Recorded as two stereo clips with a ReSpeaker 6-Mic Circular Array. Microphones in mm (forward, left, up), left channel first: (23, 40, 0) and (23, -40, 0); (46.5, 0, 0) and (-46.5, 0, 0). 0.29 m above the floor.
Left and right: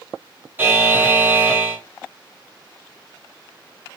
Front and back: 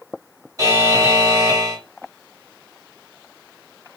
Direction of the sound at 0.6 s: 150° right.